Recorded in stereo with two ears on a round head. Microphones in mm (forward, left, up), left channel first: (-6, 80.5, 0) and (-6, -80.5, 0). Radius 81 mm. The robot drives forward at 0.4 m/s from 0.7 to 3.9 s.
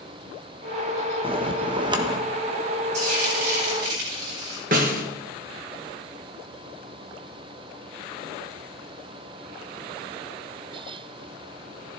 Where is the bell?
30° right (ahead or behind), 0.9 m; by 2.2 s 25° right (ahead or behind), 1.1 m.